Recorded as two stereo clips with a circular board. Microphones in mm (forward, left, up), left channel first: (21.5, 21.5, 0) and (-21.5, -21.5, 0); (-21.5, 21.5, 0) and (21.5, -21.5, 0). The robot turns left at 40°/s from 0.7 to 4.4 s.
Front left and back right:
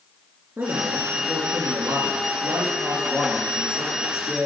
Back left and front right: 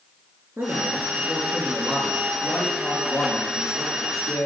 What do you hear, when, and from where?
0.6 s a man speaking: 85° right, 3.5 m; by 4.5 s 130° left, 3.5 m